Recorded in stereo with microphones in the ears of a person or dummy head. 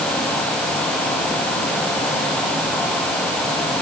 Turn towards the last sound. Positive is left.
No sound to turn to.